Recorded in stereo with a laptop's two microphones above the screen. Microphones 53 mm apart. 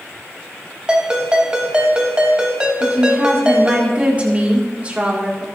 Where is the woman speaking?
25° right (ahead or behind), 1.8 m.